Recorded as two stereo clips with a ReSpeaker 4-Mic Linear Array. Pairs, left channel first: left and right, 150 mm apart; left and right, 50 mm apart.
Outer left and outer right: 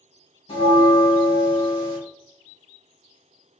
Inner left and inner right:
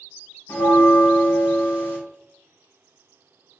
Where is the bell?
50° left (ahead or behind), 2.5 m.